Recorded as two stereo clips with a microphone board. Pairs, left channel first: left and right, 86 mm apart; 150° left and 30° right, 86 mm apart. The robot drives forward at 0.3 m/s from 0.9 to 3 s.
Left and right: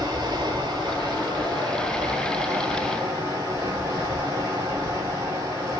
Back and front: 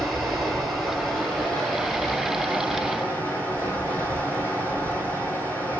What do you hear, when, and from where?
0.0 s running water: 120° right, 1.2 m; by 5.8 s 140° right, 1.5 m